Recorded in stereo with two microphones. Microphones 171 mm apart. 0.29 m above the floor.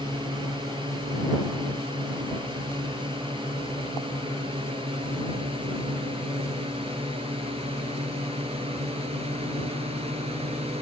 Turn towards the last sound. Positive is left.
turn(degrees=-35)  # may be behind; listen again after turning